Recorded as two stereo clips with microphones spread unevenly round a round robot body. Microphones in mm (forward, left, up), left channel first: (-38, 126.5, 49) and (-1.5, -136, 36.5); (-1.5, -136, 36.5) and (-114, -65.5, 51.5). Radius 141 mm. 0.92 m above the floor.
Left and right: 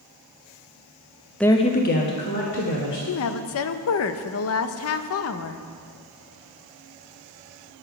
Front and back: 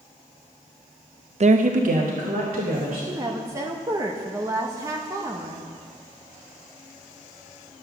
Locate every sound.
1.4 s a woman speaking: 175° right, 0.7 m; by 3.0 s 135° left, 2.5 m
3.1 s a woman speaking: 80° left, 0.6 m